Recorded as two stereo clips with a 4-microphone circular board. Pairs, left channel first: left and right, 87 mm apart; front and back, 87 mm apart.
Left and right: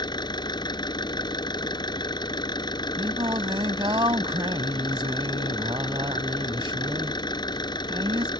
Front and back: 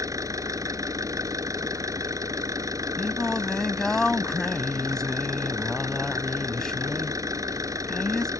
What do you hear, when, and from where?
0.0 s an engine running: 130° left
3.0 s singing: 85° right